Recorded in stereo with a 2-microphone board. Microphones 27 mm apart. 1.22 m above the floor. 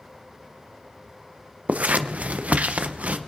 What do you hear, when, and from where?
1.7 s scissors: 70° right (ahead or behind), 0.6 m